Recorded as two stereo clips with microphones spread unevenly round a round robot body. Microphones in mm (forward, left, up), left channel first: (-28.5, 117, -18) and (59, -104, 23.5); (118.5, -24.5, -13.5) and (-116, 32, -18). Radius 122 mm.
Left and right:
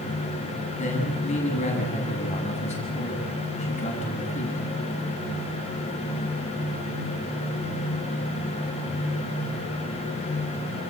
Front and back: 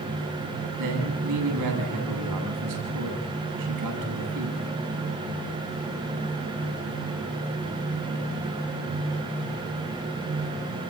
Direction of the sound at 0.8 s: 175° left.